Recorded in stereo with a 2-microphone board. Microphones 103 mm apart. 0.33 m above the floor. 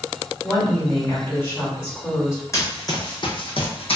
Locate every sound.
0.4 s a woman speaking: 25° left (ahead or behind), 1.6 m
2.5 s running footsteps: 30° left (ahead or behind), 1.0 m; by 4.0 s 70° left (ahead or behind), 0.8 m